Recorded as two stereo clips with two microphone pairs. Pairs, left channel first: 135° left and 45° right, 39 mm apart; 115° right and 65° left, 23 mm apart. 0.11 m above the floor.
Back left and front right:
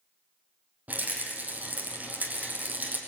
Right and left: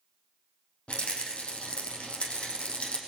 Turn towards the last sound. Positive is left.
turn(degrees=-95)